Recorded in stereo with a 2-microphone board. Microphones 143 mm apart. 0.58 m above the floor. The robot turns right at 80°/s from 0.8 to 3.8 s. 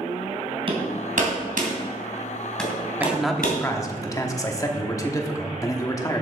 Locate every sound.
0.7 s hammering: 40° right (ahead or behind), 2.5 m; by 3.6 s 80° left, 2.5 m
3.0 s a man speaking: 20° right, 1.1 m; by 6.2 s 40° left, 1.1 m